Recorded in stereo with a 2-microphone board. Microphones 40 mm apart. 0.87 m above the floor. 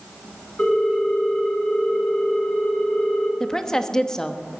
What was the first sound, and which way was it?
A ringtone, 40° left (ahead or behind).